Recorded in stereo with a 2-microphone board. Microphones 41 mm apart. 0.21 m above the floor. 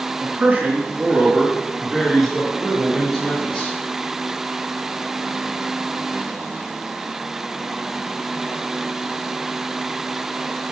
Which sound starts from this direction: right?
A man speaking, at 0.2 s.